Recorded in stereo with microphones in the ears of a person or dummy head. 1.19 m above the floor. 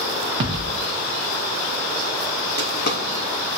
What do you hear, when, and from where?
0.4 s a thud: 30° right (ahead or behind), 0.9 m
2.6 s a drawer: 60° left (ahead or behind), 1.6 m